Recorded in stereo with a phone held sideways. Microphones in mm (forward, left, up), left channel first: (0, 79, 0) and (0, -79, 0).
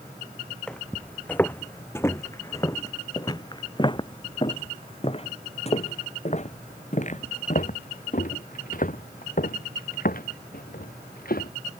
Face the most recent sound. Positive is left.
turn(degrees=65)  # may be behind; listen again after turning